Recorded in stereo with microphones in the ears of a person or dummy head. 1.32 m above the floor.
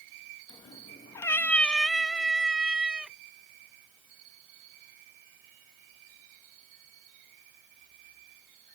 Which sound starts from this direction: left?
A cat meowing, at 0.5 s.